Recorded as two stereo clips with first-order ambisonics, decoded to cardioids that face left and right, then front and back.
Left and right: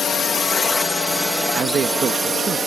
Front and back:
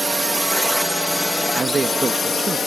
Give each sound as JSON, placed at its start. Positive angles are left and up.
{"t": 0.0, "sound": "a drone", "azimuth_deg": 105}
{"t": 1.5, "sound": "a man speaking", "azimuth_deg": -115}